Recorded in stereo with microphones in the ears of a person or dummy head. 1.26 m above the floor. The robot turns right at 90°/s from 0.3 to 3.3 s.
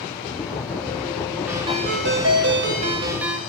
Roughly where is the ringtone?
Behind.